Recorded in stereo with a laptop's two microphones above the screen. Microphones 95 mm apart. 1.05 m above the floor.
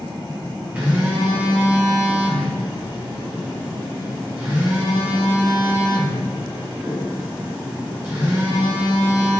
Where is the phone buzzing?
20° right (ahead or behind), 0.8 m.